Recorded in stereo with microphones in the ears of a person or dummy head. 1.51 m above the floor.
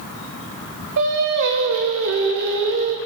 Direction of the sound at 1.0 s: 70° right (ahead or behind).